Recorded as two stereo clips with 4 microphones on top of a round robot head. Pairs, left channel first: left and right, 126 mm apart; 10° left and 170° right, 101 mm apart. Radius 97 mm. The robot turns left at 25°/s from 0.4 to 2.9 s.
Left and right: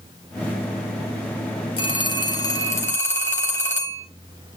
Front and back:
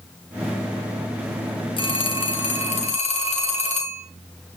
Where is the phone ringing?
45° left, 2.0 m; by 4.0 s 20° left, 2.0 m.